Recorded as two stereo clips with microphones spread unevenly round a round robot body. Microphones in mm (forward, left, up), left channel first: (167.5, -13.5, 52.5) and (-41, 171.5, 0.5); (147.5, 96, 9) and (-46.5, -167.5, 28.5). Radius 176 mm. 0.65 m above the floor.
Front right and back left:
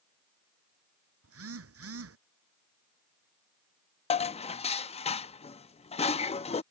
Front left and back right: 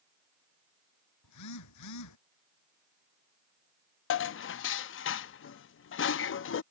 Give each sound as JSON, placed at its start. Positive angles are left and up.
{"t": 1.2, "sound": "a phone buzzing", "azimuth_deg": 100}
{"t": 4.1, "sound": "dishes clattering", "azimuth_deg": 30}